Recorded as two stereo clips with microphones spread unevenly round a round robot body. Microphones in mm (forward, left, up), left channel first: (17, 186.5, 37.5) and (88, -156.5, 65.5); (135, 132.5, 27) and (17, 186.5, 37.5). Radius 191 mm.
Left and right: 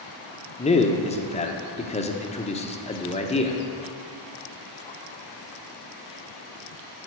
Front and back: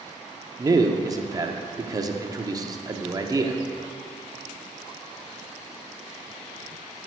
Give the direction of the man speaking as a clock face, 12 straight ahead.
8 o'clock.